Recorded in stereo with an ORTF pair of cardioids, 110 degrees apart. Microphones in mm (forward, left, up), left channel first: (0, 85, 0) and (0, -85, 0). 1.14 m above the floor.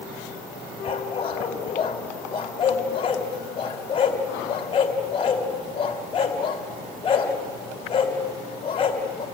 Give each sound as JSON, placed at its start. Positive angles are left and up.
{"t": 0.8, "sound": "a dog barking", "azimuth_deg": 35, "distance_m": 2.5}